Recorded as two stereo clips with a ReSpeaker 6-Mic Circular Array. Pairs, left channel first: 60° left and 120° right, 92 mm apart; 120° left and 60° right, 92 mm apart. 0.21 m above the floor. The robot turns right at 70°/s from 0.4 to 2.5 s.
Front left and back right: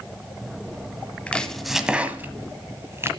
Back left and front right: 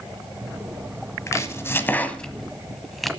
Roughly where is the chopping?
Behind left.